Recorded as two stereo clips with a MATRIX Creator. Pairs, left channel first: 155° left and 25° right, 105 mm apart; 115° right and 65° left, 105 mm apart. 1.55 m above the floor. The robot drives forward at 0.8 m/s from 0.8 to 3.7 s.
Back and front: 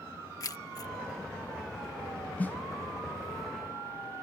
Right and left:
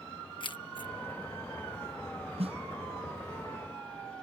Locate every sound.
0.4 s keys jangling: 150° right
2.4 s a snare drum: 85° left; by 2.6 s 90° left